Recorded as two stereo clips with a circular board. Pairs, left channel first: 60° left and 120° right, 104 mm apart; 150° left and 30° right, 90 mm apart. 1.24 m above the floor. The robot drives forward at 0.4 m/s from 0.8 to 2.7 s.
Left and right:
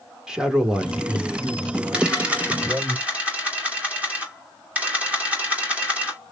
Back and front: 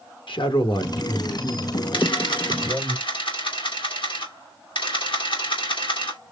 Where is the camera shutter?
160° left, 2.0 m; by 6.2 s 165° left, 2.5 m.